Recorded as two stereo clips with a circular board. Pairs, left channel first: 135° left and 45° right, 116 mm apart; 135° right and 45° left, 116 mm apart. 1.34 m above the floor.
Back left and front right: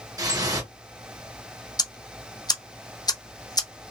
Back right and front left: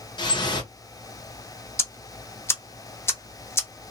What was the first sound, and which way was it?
Dripping, 95° right.